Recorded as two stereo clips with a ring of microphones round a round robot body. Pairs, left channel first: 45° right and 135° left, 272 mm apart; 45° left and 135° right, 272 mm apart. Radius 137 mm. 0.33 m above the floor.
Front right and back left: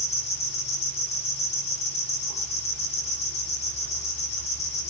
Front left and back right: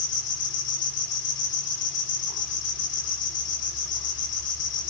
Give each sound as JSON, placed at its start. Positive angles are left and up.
{"t": 0.0, "sound": "an insect", "azimuth_deg": 20, "distance_m": 7.5}